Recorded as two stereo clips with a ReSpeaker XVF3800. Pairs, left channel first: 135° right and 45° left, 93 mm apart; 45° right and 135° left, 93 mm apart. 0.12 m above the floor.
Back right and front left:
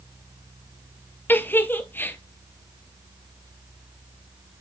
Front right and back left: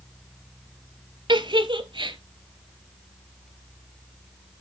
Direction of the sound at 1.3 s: 160° left.